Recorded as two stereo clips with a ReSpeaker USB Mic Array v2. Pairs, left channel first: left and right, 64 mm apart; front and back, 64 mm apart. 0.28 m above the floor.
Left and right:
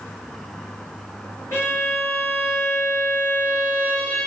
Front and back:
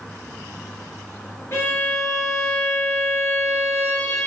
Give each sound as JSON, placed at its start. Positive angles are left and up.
{"t": 1.5, "sound": "a violin", "azimuth_deg": 45, "distance_m": 2.5}